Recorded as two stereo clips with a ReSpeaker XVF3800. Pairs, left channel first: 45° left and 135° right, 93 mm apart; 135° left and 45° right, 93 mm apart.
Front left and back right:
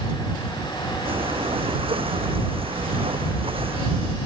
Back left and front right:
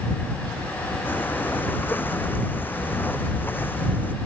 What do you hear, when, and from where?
1.1 s breathing: 155° right